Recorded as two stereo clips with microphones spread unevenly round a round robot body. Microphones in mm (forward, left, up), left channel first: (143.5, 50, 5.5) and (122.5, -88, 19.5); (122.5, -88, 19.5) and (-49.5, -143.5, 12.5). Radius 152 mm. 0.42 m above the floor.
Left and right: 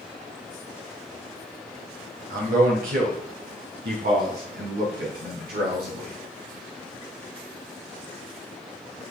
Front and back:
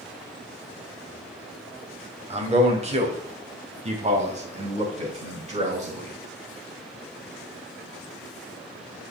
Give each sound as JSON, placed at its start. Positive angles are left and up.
{"t": 2.3, "sound": "a man speaking", "azimuth_deg": -115, "distance_m": 2.5}